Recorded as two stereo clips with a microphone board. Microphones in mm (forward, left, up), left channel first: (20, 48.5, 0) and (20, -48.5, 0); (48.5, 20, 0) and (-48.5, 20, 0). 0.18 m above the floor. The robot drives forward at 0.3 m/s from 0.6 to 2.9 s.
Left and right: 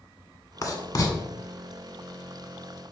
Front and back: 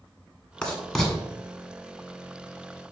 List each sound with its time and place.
0.6 s writing: 70° left, 1.4 m; by 1.1 s 80° left, 1.4 m